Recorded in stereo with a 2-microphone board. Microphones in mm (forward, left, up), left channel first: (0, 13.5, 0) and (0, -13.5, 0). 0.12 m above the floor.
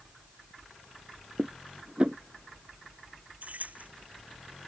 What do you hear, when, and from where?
1.4 s dishes clattering: 40° right (ahead or behind)
3.4 s keys jangling: 65° right (ahead or behind)